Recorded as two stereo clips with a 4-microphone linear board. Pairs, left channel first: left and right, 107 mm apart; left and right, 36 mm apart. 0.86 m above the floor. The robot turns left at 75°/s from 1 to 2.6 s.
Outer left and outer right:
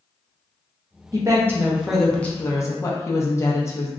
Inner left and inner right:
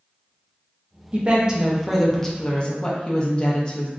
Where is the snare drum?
No snare drum in this recording.